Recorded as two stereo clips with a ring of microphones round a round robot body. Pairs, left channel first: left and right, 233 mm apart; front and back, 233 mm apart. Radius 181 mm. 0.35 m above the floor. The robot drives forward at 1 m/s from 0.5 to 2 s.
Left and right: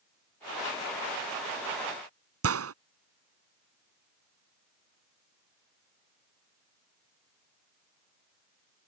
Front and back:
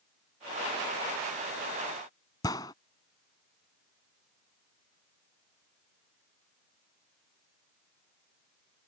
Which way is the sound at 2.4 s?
80° right.